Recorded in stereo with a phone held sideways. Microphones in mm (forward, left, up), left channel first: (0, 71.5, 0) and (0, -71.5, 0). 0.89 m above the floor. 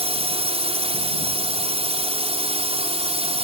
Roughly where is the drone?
Right.